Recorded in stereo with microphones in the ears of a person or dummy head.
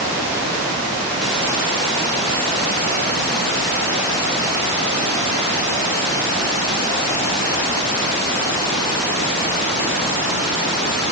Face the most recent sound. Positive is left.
No sound to turn to.